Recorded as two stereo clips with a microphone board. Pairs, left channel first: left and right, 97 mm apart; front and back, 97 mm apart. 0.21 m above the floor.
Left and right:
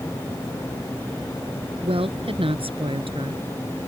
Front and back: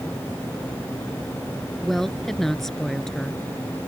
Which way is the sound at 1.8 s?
85° right.